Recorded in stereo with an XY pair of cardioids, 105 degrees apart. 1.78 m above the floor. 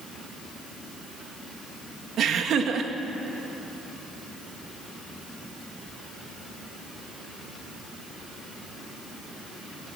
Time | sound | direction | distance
2.2 | laughter | 65° right | 2 m